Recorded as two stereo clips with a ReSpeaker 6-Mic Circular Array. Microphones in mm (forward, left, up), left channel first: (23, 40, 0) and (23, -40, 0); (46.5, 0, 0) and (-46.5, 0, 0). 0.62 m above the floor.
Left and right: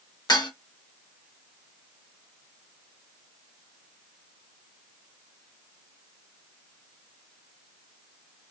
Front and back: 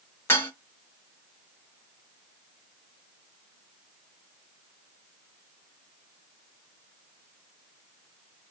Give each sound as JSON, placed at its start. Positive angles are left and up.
{"t": 0.3, "sound": "dishes clattering", "azimuth_deg": 65, "distance_m": 1.0}